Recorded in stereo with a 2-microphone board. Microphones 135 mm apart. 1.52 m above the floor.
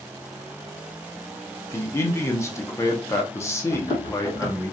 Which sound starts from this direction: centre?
A man speaking, at 1.7 s.